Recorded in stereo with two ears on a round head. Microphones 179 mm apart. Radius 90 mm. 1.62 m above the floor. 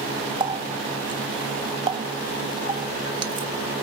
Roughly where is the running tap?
Right.